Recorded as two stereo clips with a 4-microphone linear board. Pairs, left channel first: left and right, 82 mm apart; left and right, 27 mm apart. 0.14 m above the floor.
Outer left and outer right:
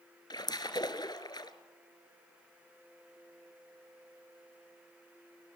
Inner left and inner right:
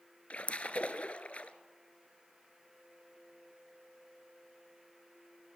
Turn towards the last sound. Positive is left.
turn(degrees=55)  # may be behind; listen again after turning